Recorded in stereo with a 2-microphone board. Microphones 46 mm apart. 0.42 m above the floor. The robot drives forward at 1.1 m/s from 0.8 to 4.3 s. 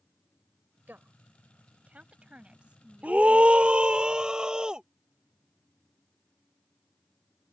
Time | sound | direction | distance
0.9 | a woman speaking | 45° right (ahead or behind) | ?
3.0 | a scream | 35° right (ahead or behind) | ?